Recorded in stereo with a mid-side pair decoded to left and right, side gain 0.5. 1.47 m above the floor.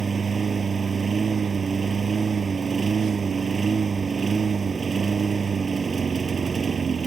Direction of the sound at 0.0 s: 30° right.